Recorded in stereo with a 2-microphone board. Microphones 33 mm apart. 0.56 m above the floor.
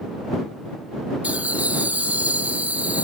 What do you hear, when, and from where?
1.2 s laughter: 55° right (ahead or behind)